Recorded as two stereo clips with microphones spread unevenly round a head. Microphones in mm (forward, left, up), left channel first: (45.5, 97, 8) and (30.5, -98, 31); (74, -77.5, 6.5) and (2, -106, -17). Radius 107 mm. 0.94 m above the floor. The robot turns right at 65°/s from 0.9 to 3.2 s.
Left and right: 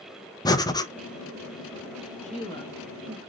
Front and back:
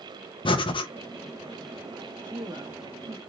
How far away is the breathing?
About 0.7 m.